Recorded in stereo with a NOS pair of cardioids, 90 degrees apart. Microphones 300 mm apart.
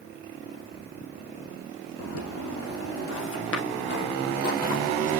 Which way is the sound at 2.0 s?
55° left.